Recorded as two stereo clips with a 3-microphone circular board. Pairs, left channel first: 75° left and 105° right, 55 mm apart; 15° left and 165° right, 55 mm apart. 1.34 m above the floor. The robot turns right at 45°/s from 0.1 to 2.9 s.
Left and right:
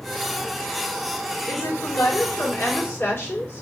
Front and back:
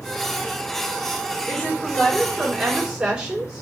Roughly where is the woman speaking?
Ahead left.